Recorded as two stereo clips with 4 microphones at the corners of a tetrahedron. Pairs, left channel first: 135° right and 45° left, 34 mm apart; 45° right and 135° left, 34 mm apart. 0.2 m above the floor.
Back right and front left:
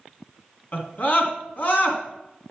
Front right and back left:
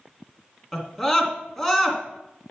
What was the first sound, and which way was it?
A scream, 135° right.